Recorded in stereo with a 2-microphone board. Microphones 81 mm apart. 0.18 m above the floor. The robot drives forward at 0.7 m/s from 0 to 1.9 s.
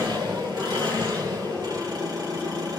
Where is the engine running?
70° right (ahead or behind), 3 m; by 2.8 s 55° right (ahead or behind), 3.5 m.